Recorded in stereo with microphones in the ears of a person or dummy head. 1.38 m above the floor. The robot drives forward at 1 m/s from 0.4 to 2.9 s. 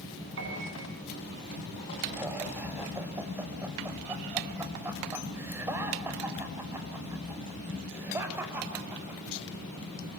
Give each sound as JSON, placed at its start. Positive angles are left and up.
{"t": 0.4, "sound": "a piano", "side_deg": -65, "distance_m": 9.0}
{"t": 2.1, "sound": "laughter", "side_deg": -10, "distance_m": 6.0}